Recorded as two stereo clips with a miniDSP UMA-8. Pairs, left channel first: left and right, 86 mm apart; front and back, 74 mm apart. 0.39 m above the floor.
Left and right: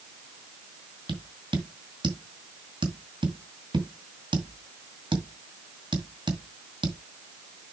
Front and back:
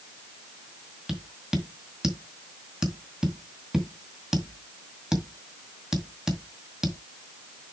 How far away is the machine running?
No machine running in this recording.